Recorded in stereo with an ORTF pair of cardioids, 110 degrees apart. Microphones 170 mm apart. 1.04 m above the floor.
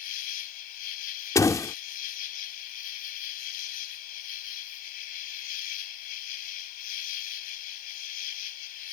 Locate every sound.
0.0 s an insect: 65° left
1.4 s a door slam: 20° left